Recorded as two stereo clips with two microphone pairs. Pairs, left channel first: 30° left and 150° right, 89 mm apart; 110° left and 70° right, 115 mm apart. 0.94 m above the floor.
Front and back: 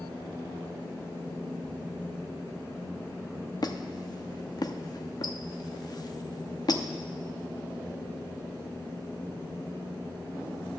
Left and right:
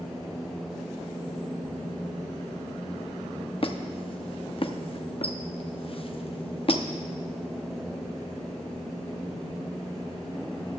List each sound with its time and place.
3.6 s a squeak: 75° left, 0.8 m